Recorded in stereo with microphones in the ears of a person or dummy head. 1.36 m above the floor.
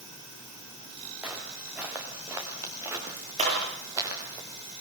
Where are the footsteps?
10° right (ahead or behind), 6 m; by 4.4 s 20° right (ahead or behind), 8 m.